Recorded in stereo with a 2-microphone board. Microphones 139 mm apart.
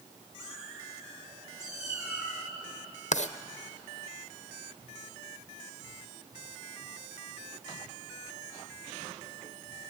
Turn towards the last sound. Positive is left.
turn(degrees=60)  # may be behind; listen again after turning